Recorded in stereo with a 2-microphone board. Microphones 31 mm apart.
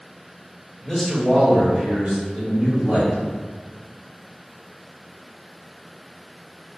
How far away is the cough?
I don't hear a cough.